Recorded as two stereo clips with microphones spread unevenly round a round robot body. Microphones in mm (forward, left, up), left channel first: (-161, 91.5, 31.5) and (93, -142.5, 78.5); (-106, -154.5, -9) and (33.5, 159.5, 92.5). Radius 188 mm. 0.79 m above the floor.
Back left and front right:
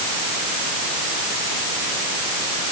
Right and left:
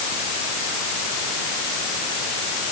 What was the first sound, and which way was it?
Only background noise.